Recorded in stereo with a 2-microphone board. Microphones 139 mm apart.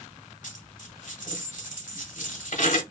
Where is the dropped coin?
65° left (ahead or behind), 1.0 m.